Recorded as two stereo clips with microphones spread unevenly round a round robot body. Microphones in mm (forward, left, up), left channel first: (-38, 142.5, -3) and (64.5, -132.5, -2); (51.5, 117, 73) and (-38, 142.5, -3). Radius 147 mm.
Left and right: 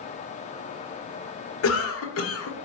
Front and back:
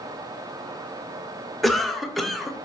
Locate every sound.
1.6 s a cough: 125° left, 1.4 m